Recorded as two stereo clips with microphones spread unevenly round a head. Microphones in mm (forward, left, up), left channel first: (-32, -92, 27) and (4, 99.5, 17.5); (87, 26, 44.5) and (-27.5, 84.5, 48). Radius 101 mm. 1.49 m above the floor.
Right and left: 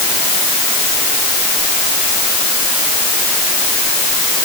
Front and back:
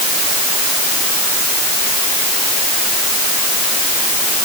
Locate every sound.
Only background noise.